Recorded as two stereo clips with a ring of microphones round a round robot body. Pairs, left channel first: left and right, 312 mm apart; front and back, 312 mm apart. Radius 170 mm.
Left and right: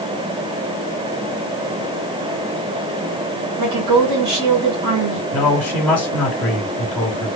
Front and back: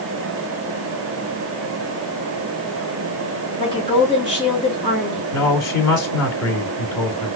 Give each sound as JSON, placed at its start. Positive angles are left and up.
{"t": 3.6, "sound": "a woman speaking", "azimuth_deg": -75, "distance_m": 2.0}
{"t": 5.3, "sound": "a man speaking", "azimuth_deg": 0, "distance_m": 1.6}